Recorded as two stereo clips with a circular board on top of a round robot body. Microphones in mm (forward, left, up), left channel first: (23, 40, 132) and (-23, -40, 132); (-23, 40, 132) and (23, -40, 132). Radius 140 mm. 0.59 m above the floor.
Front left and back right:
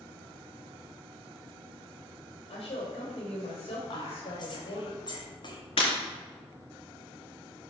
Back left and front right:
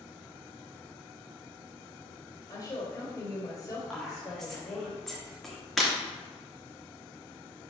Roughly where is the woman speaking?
Ahead left.